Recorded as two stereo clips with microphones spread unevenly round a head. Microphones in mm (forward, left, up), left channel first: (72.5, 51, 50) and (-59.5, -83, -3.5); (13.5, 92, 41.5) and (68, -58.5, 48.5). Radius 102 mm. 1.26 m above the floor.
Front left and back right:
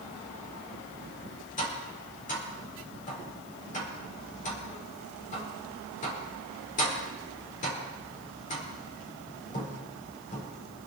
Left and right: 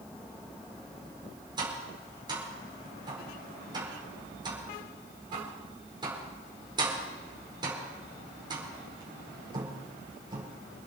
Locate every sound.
1.6 s tapping: 5° right, 5 m